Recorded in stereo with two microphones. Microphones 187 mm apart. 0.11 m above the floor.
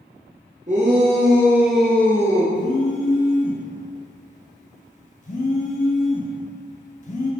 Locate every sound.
0.7 s a shout: 40° right (ahead or behind), 1.6 m; by 2.5 s 20° left (ahead or behind), 1.9 m
2.5 s a phone buzzing: 40° left (ahead or behind), 1.4 m